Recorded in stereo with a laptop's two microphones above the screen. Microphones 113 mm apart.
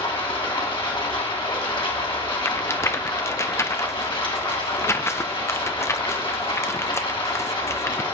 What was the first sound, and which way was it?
Running water, 50° left (ahead or behind).